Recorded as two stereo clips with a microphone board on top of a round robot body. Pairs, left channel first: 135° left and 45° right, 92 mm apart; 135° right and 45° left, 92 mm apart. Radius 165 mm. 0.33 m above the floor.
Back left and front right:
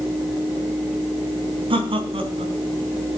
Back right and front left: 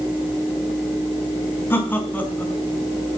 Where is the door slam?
No door slam in this recording.